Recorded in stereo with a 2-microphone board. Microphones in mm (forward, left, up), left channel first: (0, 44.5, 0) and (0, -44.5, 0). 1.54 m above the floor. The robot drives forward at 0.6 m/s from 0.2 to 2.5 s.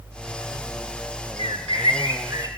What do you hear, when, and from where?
1.4 s a bird: 75° right (ahead or behind), 0.6 m; by 2.5 s 35° right (ahead or behind), 1.0 m